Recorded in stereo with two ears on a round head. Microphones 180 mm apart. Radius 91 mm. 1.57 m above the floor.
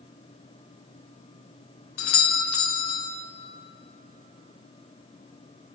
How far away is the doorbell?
About 0.7 m.